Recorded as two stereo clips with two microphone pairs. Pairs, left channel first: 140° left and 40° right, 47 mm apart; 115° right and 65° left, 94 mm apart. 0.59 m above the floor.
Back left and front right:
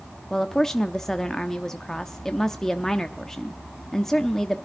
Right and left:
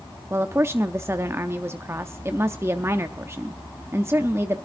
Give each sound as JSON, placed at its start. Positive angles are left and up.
{"t": 0.3, "sound": "a woman speaking", "azimuth_deg": 75, "distance_m": 0.7}